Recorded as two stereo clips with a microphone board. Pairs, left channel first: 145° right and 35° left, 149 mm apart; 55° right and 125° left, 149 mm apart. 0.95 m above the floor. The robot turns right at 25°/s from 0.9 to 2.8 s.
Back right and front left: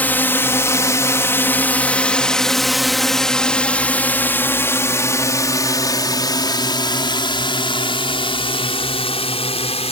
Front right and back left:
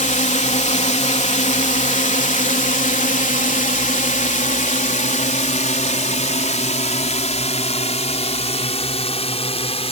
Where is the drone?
70° right; by 9.9 s 100° right.